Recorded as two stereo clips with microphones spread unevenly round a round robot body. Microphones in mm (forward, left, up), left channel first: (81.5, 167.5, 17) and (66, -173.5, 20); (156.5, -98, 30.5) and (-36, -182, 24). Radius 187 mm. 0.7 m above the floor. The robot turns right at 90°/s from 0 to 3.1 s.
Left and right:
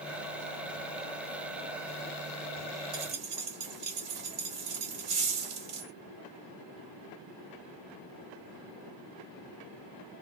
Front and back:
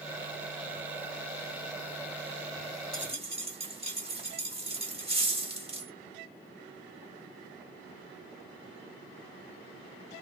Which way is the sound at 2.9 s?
110° right.